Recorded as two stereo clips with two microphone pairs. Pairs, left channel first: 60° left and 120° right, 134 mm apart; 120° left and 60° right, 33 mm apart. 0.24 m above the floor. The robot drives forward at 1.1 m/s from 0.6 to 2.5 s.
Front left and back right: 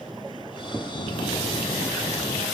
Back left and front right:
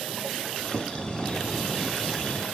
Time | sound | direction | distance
0.9 | a bell | 30° left | ?